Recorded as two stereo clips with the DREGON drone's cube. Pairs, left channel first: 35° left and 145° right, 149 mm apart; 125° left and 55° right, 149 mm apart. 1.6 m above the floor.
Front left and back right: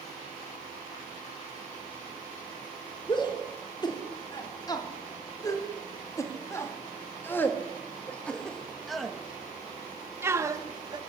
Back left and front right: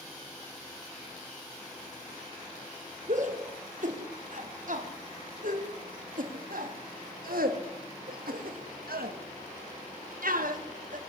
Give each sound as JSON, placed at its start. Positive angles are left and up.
{"t": 3.1, "sound": "a shout", "azimuth_deg": -25, "distance_m": 4.5}